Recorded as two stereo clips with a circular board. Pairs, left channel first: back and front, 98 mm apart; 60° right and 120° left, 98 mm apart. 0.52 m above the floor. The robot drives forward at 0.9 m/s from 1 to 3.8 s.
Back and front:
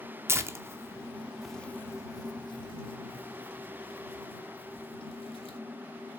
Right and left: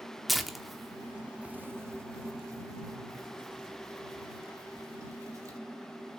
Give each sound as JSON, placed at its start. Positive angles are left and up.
{"t": 0.3, "sound": "tearing paper", "azimuth_deg": 30, "distance_m": 0.9}